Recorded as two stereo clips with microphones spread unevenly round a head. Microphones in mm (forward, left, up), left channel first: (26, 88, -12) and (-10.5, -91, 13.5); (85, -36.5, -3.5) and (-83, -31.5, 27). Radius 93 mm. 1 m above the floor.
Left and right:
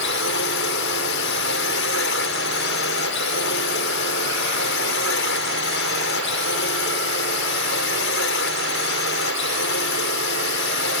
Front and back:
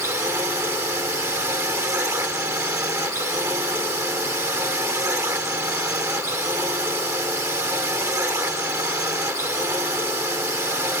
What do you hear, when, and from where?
0.0 s a drone: 100° left